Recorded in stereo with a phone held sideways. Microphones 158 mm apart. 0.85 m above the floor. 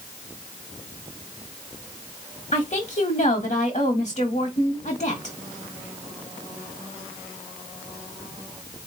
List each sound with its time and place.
2.5 s a woman speaking: 50° left (ahead or behind), 1.4 m